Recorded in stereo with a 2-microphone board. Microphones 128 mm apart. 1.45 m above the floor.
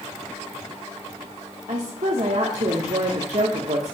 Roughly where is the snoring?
I don't hear snoring.